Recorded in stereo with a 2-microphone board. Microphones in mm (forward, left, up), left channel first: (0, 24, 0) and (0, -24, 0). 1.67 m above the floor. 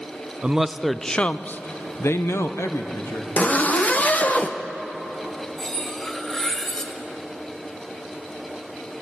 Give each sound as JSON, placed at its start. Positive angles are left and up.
{"t": 0.4, "sound": "a man speaking", "side_deg": -20, "distance_m": 0.7}
{"t": 3.4, "sound": "a zipper", "side_deg": 30, "distance_m": 0.8}
{"t": 5.6, "sound": "cutlery clinking", "side_deg": 10, "distance_m": 1.4}